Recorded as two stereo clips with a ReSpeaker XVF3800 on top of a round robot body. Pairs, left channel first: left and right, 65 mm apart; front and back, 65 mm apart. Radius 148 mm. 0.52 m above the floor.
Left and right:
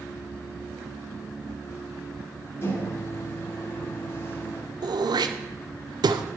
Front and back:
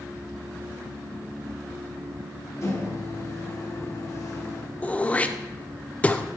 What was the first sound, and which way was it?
A microwave, 40° left.